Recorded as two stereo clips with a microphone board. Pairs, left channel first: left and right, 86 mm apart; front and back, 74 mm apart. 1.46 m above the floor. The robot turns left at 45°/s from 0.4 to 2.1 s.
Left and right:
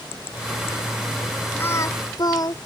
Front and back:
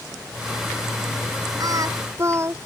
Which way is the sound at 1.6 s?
155° left.